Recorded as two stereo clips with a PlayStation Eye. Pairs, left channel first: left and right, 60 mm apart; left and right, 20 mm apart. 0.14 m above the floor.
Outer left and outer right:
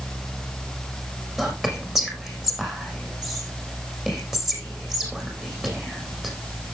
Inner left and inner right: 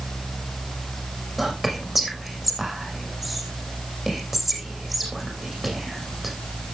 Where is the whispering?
10° right (ahead or behind), 6.5 m.